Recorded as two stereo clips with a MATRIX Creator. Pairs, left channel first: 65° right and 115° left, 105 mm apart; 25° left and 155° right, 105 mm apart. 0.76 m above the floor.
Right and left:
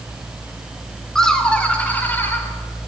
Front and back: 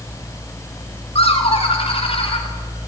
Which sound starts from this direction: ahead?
Laughter, at 1.1 s.